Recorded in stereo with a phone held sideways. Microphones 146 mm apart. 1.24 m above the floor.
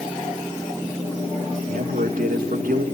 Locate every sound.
1.6 s a man speaking: 75° right (ahead or behind), 2.5 m